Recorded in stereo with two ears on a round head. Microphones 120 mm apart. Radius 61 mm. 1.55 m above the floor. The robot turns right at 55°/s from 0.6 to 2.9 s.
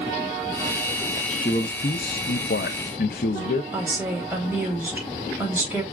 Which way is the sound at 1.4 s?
25° left.